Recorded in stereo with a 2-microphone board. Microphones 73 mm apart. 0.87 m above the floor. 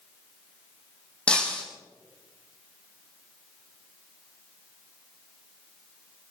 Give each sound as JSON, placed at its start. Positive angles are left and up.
{"t": 1.3, "sound": "breaking glass", "side_deg": 15, "distance_m": 3.5}